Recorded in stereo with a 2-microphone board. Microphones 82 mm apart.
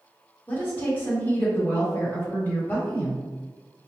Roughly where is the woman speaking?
Left.